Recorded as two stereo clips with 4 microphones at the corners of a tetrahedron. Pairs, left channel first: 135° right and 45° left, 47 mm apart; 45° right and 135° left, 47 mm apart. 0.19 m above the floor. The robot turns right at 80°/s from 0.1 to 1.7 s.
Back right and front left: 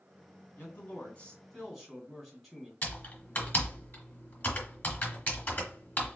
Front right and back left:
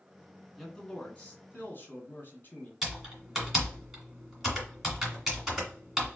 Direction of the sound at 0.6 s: 135° right.